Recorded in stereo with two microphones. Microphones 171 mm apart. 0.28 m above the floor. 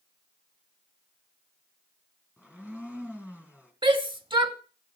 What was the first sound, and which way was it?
A blender, 10° right (ahead or behind).